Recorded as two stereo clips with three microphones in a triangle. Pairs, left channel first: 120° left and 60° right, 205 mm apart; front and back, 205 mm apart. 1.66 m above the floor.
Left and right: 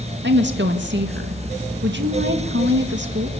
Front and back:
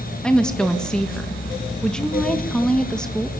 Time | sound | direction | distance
0.2 | a woman speaking | 85° right | 2.0 m